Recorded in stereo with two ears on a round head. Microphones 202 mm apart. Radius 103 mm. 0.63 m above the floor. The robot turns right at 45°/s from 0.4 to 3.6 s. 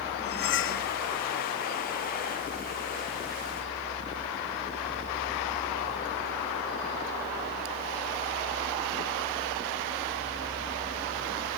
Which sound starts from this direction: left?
Cutlery clinking, at 0.2 s.